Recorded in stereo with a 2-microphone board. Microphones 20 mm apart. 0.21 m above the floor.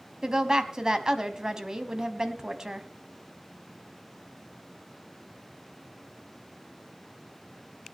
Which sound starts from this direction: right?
A woman speaking, at 0.2 s.